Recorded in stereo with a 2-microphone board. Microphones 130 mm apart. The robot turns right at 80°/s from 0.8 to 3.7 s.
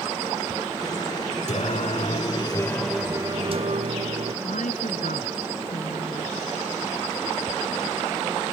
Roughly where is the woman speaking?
Left.